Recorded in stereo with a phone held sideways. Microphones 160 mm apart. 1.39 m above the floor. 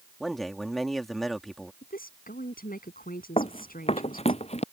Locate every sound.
0.2 s a man speaking: centre (ahead or behind)
1.8 s a woman speaking: 65° left (ahead or behind)
3.4 s running footsteps: 40° left (ahead or behind)